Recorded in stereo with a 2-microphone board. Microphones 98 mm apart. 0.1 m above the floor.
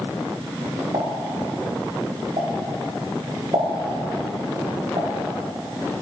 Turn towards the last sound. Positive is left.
turn(degrees=-75)  # may be behind; listen again after turning